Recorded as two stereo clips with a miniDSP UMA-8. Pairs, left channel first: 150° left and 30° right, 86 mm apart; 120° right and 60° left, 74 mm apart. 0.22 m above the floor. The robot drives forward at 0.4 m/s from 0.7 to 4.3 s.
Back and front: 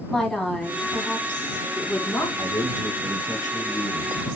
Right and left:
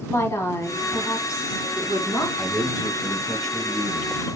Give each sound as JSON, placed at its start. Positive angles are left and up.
{"t": 0.1, "sound": "a woman speaking", "azimuth_deg": -130, "distance_m": 1.3}
{"t": 2.4, "sound": "a man speaking", "azimuth_deg": 150, "distance_m": 1.4}